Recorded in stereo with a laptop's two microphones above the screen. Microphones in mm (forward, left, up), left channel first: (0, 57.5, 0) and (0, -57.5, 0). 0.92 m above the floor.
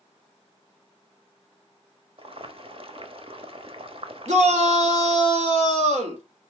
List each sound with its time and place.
2.2 s boiling: 55° right (ahead or behind), 0.9 m
4.3 s a shout: 80° right, 2 m